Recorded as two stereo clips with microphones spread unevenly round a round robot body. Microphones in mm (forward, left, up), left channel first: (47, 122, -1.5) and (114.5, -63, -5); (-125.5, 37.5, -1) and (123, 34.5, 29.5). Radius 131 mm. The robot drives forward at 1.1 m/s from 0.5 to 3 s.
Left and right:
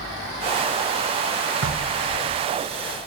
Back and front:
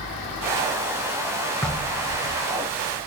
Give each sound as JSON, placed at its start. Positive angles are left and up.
{"t": 1.6, "sound": "knocking", "azimuth_deg": -95, "distance_m": 1.4}